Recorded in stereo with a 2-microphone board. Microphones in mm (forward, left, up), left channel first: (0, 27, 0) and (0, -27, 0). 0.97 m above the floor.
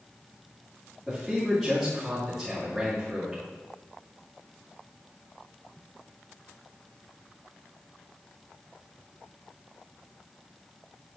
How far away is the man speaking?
About 2.5 m.